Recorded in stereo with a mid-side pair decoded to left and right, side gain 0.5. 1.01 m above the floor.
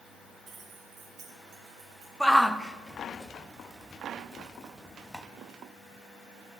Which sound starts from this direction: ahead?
A shout, at 2.2 s.